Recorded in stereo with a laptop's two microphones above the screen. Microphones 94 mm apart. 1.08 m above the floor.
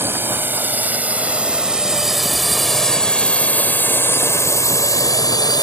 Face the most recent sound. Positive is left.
turn(degrees=50)  # may be behind; listen again after turning